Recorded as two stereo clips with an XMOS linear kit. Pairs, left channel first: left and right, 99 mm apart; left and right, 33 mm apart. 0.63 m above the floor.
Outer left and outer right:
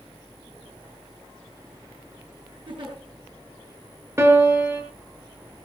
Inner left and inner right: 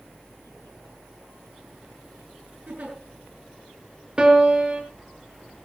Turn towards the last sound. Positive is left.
turn(degrees=-30)  # may be behind; listen again after turning